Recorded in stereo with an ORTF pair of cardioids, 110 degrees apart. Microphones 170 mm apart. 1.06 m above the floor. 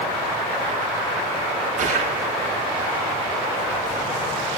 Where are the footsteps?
50° right, 7 m.